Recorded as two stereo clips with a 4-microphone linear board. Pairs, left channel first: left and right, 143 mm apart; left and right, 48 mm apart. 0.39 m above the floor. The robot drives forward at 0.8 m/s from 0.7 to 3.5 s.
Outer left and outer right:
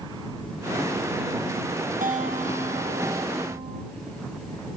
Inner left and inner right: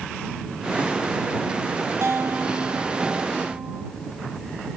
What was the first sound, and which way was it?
A guitar, 65° right (ahead or behind).